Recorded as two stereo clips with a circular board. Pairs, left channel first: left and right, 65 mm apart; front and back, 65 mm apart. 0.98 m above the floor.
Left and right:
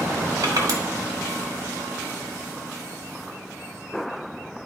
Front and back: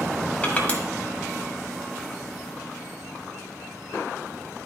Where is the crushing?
70° right, 1.5 m.